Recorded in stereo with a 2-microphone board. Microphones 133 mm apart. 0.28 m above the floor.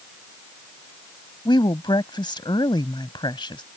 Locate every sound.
1.4 s a woman speaking: 40° left (ahead or behind)